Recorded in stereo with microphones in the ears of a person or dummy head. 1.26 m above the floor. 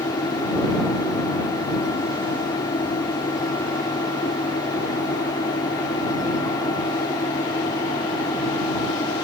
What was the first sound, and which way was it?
A fan, 25° left (ahead or behind).